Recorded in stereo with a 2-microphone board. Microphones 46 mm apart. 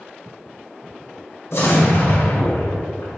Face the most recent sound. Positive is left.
turn(degrees=70)  # may be behind; listen again after turning